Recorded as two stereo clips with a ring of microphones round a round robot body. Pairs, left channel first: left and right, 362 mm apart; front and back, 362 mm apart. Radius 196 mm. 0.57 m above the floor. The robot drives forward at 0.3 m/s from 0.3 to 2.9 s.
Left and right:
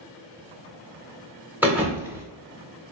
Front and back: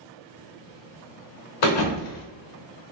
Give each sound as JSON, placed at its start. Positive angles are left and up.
{"t": 1.6, "sound": "a thud", "azimuth_deg": -5, "distance_m": 0.7}